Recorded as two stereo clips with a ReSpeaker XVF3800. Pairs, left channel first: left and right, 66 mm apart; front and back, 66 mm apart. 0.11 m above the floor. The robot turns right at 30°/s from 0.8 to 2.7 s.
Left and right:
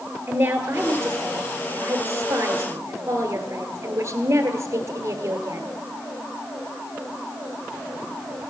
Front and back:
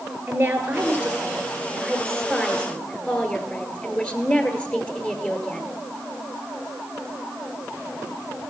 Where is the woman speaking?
125° right, 1.6 m; by 5.7 s 70° right, 1.6 m.